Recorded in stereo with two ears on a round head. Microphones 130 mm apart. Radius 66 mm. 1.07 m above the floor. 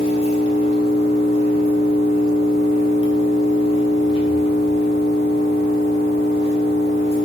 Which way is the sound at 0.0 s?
40° left (ahead or behind).